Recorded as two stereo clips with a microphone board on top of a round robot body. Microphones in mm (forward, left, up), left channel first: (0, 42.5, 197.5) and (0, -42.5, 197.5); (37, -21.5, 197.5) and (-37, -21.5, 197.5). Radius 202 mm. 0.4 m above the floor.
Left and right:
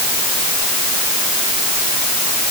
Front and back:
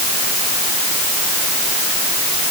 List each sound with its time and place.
Only background noise.